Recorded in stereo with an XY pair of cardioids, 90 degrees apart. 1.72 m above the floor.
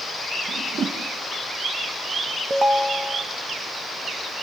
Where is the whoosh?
60° right, 2.5 m.